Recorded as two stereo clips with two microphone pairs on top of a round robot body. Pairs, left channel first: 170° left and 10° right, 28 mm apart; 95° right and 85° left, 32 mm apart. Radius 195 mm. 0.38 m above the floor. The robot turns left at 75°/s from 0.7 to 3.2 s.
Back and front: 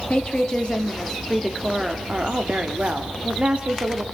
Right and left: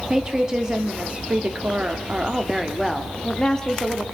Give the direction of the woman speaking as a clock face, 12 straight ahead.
7 o'clock.